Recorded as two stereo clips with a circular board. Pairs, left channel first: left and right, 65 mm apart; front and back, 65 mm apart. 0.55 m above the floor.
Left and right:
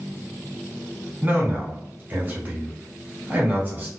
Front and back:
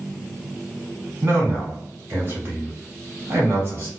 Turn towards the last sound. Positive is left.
turn(degrees=-145)